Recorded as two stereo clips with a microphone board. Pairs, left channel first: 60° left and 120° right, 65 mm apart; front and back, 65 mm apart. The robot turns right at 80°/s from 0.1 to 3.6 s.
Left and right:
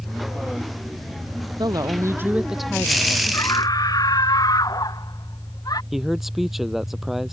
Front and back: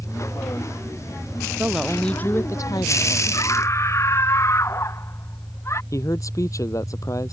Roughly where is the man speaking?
Ahead right.